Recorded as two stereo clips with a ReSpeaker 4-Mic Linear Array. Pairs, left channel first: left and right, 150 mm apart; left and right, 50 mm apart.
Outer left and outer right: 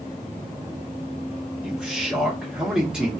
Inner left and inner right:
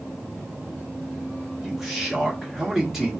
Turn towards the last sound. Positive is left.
turn(degrees=-5)  # may be behind; listen again after turning